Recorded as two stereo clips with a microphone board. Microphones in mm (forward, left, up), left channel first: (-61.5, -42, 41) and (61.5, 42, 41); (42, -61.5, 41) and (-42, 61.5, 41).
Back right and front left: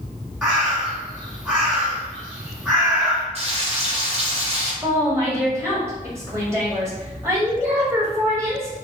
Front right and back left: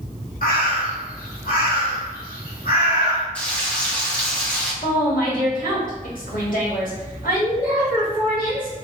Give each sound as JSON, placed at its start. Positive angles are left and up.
{"t": 0.4, "sound": "a bird", "azimuth_deg": -50, "distance_m": 1.4}
{"t": 3.4, "sound": "frying", "azimuth_deg": 20, "distance_m": 0.8}
{"t": 4.8, "sound": "a woman speaking", "azimuth_deg": -35, "distance_m": 1.5}